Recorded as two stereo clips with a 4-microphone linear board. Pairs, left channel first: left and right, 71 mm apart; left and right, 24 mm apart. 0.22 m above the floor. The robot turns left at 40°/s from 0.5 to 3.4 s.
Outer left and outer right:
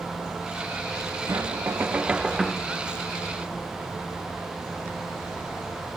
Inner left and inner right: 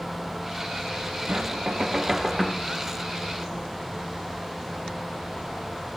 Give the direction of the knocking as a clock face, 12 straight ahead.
4 o'clock.